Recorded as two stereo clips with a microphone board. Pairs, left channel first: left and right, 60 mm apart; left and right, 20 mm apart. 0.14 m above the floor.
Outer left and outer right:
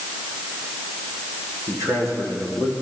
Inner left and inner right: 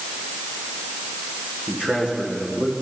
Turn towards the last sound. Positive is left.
turn(degrees=-70)  # may be behind; listen again after turning